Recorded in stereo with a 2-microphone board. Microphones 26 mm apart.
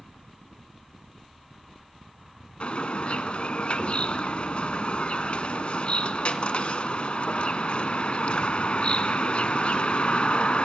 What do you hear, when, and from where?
2.6 s a bird: 50° left (ahead or behind), 0.9 m